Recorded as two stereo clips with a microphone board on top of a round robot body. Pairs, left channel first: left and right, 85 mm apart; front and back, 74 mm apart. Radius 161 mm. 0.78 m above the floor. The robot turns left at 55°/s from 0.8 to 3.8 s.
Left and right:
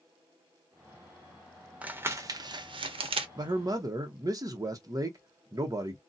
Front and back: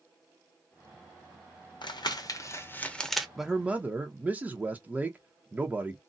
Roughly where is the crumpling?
Ahead.